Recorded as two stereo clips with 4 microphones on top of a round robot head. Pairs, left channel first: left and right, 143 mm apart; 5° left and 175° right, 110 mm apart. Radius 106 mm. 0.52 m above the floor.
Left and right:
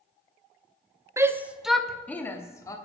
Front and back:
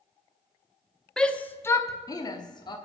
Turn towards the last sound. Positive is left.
turn(degrees=30)